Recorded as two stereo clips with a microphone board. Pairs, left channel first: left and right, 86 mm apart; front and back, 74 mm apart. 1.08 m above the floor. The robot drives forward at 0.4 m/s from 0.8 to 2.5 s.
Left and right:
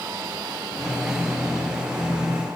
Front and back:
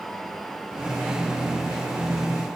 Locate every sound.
Only background noise.